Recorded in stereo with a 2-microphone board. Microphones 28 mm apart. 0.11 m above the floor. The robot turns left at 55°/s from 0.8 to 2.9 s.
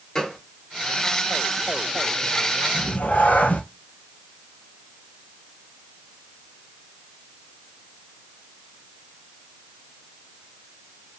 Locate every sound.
0.1 s a gunshot: 25° left (ahead or behind), 1.3 m
2.7 s a cat meowing: 70° left (ahead or behind), 0.9 m; by 3.6 s 65° left (ahead or behind), 0.9 m